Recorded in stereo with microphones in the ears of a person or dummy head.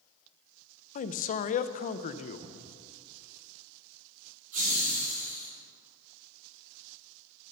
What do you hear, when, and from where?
0.9 s a man speaking: 40° left (ahead or behind), 0.5 m
2.4 s a cupboard door: 30° right (ahead or behind), 1.2 m
4.5 s laughter: 45° right (ahead or behind), 2.5 m